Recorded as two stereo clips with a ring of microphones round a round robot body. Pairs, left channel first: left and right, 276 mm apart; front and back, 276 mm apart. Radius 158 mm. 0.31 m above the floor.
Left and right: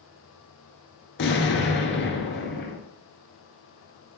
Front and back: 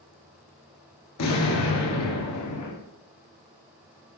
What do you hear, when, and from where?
1.2 s an explosion: 40° left, 1.3 m